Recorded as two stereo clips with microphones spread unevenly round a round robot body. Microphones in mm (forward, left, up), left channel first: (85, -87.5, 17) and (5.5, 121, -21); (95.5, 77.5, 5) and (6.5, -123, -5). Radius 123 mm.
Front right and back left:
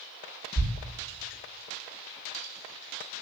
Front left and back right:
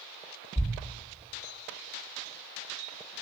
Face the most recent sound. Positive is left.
turn(degrees=-20)